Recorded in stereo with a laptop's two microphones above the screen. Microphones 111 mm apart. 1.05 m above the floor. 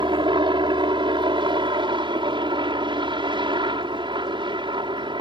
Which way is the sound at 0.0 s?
45° right (ahead or behind).